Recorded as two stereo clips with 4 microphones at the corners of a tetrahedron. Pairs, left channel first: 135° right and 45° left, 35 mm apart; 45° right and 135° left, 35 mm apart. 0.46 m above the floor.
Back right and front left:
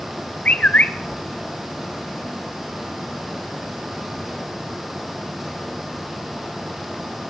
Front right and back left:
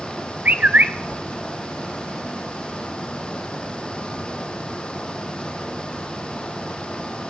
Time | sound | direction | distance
0.5 | a bird | 175° left | 0.5 m